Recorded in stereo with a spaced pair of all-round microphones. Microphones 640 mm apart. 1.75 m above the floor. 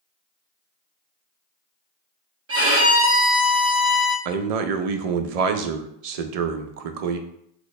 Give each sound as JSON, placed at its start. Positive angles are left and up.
{"t": 2.5, "sound": "a violin", "side_deg": -20, "distance_m": 0.9}
{"t": 4.2, "sound": "a man speaking", "side_deg": -70, "distance_m": 0.5}